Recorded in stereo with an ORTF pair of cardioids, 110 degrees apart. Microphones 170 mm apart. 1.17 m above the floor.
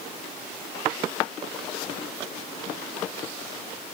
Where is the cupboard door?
No cupboard door in this recording.